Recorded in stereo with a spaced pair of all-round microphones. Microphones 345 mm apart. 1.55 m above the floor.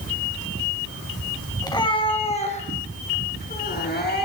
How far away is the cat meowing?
About 2 m.